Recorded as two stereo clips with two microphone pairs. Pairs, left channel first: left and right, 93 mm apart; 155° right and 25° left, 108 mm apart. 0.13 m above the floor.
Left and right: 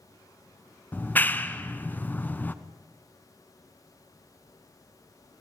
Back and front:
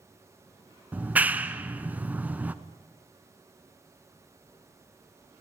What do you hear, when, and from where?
0.9 s a clap: 65° left, 1.0 m